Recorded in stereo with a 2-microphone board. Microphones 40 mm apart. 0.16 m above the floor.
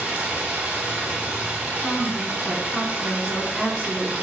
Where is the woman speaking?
5° right (ahead or behind), 1.3 m.